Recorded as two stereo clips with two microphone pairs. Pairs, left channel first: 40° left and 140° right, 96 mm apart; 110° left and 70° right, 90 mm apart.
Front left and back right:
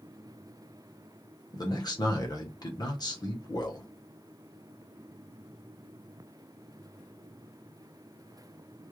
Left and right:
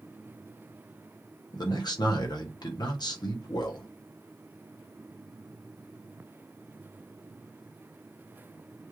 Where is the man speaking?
80° left, 0.9 m.